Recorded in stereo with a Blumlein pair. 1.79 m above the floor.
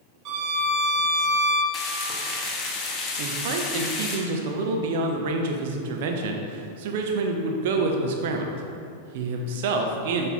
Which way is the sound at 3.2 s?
50° right.